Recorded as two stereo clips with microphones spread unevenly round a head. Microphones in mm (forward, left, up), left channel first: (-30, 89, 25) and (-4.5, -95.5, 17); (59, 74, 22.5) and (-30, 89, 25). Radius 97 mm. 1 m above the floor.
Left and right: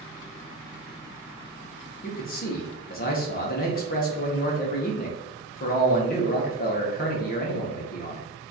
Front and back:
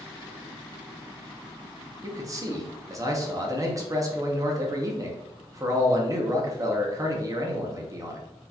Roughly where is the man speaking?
Behind left.